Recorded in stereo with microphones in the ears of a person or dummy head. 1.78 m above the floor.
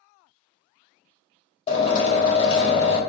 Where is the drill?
30° left (ahead or behind), 1.4 m.